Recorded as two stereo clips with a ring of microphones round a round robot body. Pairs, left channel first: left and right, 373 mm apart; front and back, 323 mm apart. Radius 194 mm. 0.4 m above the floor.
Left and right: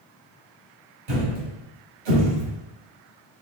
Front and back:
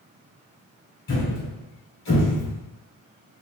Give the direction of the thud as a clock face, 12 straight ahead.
2 o'clock.